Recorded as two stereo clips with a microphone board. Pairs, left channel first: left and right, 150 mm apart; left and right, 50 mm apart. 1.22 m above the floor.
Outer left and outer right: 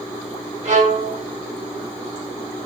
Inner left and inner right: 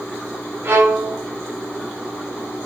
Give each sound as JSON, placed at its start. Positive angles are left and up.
{"t": 0.6, "sound": "a violin", "side_deg": -55, "distance_m": 1.2}